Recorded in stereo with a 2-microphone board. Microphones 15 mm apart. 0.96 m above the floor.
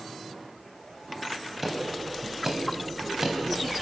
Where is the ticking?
15° right (ahead or behind), 3.5 m.